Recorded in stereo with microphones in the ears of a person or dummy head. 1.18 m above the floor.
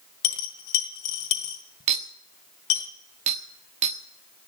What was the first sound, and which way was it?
A dropped coin, 65° left (ahead or behind).